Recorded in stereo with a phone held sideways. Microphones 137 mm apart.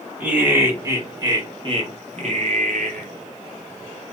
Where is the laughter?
10° right (ahead or behind), 1.5 m; by 3.1 s 70° right (ahead or behind), 1.0 m.